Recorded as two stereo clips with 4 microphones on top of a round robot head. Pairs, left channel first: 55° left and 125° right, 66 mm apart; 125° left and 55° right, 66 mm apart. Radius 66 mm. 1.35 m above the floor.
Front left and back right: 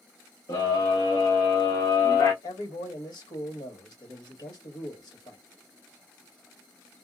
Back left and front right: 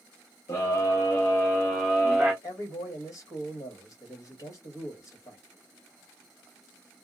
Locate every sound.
0.5 s a scream: 80° left, 1.1 m; by 2.3 s 20° left, 0.8 m
2.4 s a man speaking: 80° left, 1.4 m